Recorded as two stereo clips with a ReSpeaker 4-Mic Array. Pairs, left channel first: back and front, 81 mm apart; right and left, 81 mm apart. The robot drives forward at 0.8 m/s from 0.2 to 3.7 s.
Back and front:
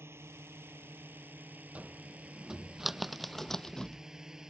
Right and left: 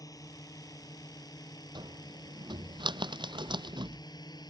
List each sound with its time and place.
0.0 s a drone: 55° right; by 4.5 s 80° right
1.8 s a cupboard door: 75° left; by 4.0 s 100° left